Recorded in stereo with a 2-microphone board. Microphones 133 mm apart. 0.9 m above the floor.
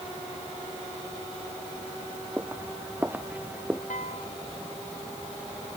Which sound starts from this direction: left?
A piano, at 3.9 s.